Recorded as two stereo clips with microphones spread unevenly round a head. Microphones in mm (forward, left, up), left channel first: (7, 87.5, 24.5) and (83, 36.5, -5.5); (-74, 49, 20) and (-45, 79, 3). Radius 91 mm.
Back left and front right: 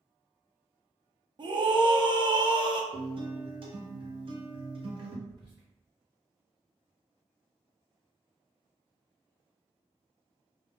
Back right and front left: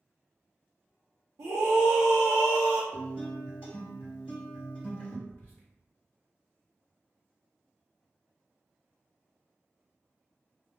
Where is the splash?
I don't hear a splash.